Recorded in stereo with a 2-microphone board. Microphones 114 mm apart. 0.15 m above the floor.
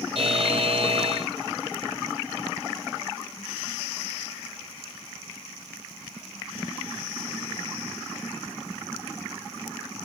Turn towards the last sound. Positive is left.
turn(degrees=-50)  # may be behind; listen again after turning